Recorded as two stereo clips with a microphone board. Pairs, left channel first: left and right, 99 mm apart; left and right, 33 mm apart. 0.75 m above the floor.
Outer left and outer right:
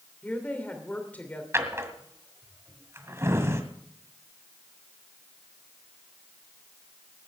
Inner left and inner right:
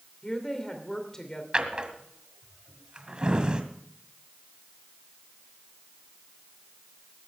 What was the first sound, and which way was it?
A woman speaking, 15° left (ahead or behind).